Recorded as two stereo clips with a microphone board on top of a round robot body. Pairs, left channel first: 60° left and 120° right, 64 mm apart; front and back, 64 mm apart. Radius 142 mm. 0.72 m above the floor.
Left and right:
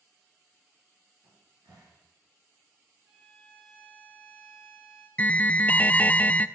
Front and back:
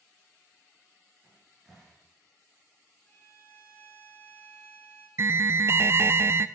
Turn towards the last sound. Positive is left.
turn(degrees=130)